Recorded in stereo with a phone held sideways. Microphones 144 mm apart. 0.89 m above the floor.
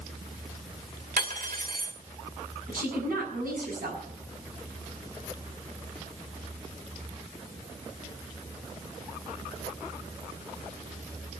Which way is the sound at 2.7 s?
75° right (ahead or behind).